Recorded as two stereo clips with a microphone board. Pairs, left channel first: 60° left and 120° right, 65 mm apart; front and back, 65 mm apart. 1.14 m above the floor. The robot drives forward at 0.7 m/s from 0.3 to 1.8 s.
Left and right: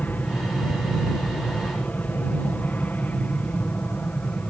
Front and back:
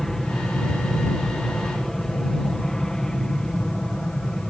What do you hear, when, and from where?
0.0 s an aircraft: 75° left; by 4.5 s 60° left